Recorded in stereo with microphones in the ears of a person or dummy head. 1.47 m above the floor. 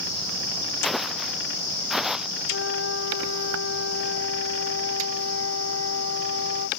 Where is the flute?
90° left.